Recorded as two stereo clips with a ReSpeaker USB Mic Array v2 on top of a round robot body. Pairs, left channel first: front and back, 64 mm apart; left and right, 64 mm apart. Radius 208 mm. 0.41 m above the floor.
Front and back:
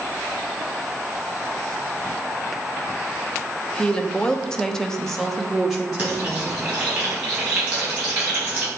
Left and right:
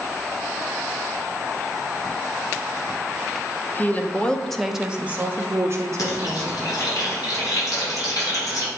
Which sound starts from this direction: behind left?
Frying, at 6.0 s.